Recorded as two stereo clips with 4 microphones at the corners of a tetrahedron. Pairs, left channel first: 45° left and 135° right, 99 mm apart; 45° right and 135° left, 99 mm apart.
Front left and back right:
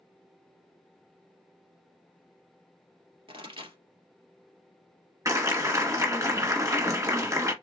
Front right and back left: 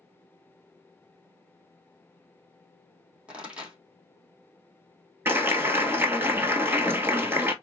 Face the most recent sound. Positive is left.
turn(degrees=-175)